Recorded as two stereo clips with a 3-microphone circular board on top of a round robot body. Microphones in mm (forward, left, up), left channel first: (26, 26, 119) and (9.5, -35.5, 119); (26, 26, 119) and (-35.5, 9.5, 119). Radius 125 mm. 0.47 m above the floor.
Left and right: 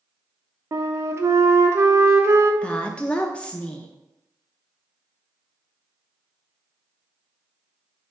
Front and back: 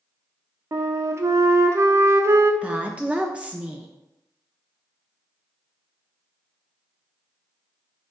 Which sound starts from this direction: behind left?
A woman speaking, at 2.6 s.